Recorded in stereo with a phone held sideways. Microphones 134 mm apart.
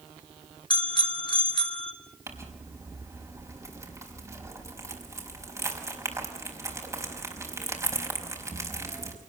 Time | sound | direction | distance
0.7 | a bicycle bell | 40° left (ahead or behind) | 2 m
2.3 | crumpling | 25° right (ahead or behind) | 5.5 m